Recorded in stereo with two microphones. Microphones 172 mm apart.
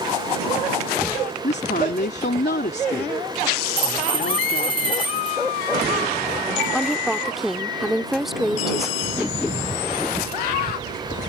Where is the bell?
30° right (ahead or behind).